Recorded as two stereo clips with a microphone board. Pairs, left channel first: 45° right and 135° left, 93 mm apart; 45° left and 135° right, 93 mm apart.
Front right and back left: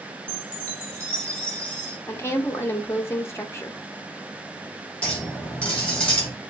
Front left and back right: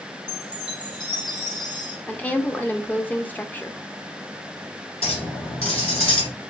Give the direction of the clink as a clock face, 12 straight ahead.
11 o'clock.